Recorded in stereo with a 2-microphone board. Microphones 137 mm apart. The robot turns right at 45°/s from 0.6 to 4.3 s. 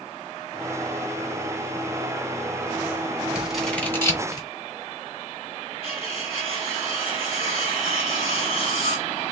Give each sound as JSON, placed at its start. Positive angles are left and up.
{"t": 3.4, "sound": "scissors", "side_deg": -10, "distance_m": 2.5}
{"t": 5.8, "sound": "cutlery clinking", "side_deg": 45, "distance_m": 2.0}